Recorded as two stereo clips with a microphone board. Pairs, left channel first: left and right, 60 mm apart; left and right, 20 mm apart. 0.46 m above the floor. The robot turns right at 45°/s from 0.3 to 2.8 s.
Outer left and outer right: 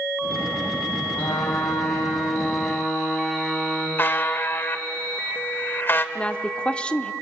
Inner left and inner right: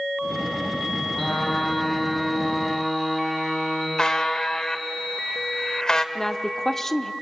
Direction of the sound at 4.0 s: 35° left (ahead or behind).